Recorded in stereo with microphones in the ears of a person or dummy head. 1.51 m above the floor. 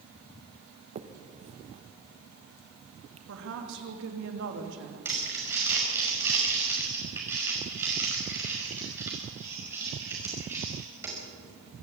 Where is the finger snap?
30° right (ahead or behind), 0.9 m.